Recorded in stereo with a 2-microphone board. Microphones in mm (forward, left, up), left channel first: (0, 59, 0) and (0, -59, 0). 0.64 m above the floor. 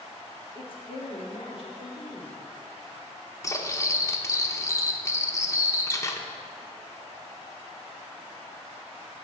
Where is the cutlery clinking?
25° left (ahead or behind), 0.8 m.